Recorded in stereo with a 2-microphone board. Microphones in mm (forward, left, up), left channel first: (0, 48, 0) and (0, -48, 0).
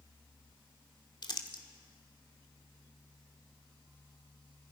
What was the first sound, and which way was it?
Crumpling, 55° left (ahead or behind).